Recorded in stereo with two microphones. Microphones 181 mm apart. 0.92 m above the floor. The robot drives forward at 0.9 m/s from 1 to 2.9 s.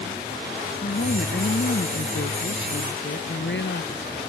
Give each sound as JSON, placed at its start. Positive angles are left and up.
{"t": 0.8, "sound": "a woman speaking", "side_deg": 70}